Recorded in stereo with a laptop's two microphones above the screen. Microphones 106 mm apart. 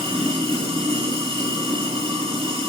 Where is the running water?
65° right (ahead or behind), 3 m.